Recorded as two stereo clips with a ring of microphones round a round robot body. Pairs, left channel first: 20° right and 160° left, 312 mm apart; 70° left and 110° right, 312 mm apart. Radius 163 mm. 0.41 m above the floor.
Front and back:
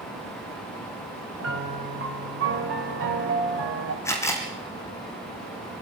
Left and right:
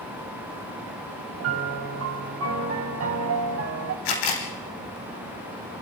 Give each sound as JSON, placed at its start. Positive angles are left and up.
{"t": 1.4, "sound": "a piano", "azimuth_deg": -155, "distance_m": 3.5}
{"t": 4.0, "sound": "a camera shutter", "azimuth_deg": 60, "distance_m": 4.0}